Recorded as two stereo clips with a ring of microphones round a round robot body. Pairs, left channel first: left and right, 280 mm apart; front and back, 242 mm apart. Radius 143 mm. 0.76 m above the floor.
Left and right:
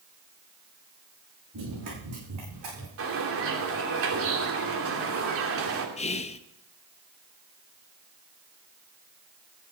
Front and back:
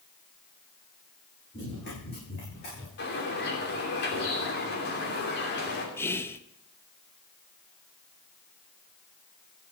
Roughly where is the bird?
Ahead right.